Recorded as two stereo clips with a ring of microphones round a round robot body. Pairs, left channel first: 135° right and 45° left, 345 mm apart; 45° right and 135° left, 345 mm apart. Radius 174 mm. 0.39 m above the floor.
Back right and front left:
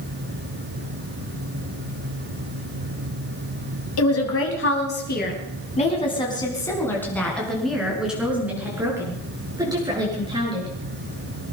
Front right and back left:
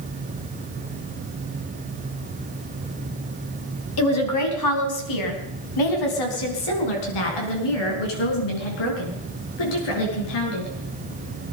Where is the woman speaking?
90° right, 3.5 m; by 10.7 s 30° right, 8 m.